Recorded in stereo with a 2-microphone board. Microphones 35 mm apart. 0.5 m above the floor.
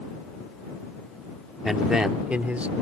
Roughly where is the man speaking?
Centre.